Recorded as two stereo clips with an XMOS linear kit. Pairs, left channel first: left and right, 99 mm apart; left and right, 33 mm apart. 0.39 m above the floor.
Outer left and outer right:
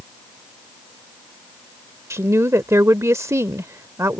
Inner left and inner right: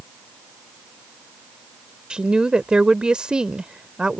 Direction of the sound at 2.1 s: 30° right (ahead or behind).